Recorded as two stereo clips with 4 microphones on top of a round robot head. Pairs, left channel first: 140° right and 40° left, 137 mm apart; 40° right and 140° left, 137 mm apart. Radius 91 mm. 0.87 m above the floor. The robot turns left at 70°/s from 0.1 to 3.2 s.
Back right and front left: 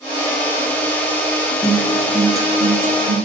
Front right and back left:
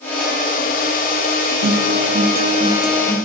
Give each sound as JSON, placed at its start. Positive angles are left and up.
{"t": 1.6, "sound": "a guitar", "azimuth_deg": 155, "distance_m": 1.1}